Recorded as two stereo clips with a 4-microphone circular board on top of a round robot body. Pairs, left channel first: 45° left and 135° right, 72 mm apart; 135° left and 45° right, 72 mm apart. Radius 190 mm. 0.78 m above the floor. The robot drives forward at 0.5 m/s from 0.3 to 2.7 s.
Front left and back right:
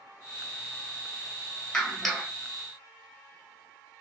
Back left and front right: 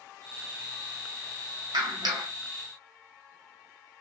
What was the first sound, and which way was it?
A clap, 40° right.